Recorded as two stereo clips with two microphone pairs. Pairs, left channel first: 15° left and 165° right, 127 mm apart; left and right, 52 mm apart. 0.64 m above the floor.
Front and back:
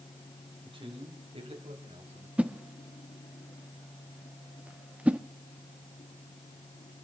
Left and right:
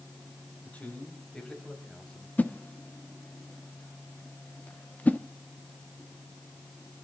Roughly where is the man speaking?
Behind left.